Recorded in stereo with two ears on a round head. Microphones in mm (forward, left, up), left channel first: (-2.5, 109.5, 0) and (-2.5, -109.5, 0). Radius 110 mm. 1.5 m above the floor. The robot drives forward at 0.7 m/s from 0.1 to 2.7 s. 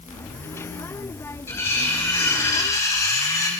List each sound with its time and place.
1.5 s cutlery clinking: 10° left (ahead or behind), 5 m; by 3.5 s 15° left (ahead or behind), 4 m